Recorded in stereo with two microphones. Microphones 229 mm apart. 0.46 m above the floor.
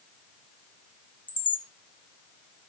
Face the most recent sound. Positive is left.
turn(degrees=20)  # may be behind; listen again after turning